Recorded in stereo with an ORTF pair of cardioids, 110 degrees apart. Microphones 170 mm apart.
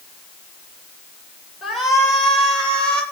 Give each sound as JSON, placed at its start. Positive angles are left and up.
{"t": 1.6, "sound": "a shout", "azimuth_deg": 0, "distance_m": 9.0}